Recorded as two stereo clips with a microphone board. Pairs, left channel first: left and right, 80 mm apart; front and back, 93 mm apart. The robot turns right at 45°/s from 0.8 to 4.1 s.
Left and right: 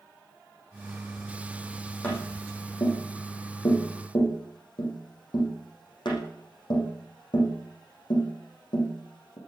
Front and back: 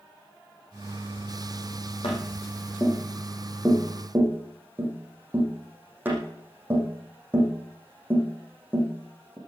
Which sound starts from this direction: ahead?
Tapping, at 2.0 s.